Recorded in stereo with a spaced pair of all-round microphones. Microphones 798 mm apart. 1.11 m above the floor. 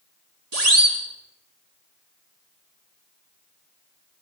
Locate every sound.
0.5 s a siren: 50° right (ahead or behind), 3.5 m